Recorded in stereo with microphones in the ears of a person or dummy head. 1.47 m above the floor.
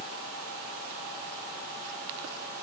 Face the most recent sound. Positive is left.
No sound to turn to.